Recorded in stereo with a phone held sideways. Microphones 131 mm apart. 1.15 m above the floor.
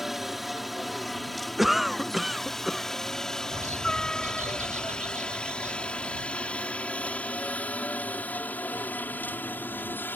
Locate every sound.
0.0 s a helicopter: centre (ahead or behind); by 10.2 s 15° left (ahead or behind)
1.6 s a cough: centre (ahead or behind)
3.5 s a bird: 70° right (ahead or behind)